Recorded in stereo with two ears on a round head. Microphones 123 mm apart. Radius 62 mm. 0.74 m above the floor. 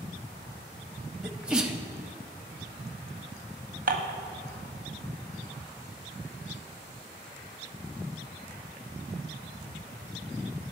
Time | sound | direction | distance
1.2 | a sneeze | 5° right (ahead or behind) | 0.5 m
3.9 | dishes clattering | 70° right (ahead or behind) | 0.8 m